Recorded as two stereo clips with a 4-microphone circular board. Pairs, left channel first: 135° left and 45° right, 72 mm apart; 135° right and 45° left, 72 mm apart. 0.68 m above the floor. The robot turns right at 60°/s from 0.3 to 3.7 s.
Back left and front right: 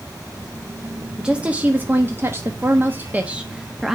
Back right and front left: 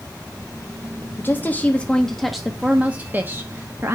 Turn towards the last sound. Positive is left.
turn(degrees=35)